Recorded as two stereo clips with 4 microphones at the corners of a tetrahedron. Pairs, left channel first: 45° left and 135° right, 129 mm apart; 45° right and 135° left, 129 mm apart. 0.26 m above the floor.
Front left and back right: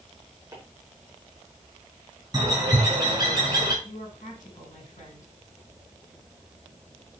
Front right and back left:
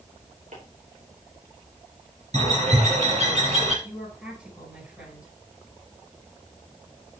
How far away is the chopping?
About 4.5 m.